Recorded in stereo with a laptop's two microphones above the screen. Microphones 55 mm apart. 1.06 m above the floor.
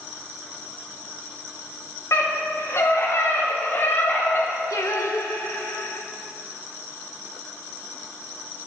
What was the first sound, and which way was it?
A scream, 65° left (ahead or behind).